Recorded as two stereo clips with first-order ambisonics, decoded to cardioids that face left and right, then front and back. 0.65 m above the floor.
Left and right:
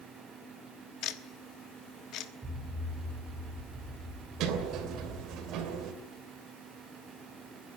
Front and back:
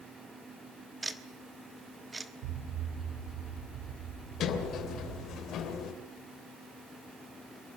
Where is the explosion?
170° right, 4.5 m.